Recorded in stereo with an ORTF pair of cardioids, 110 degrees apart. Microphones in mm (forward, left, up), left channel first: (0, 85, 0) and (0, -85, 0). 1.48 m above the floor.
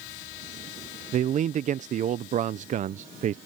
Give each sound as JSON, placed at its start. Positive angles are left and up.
{"t": 1.1, "sound": "a man speaking", "azimuth_deg": -45}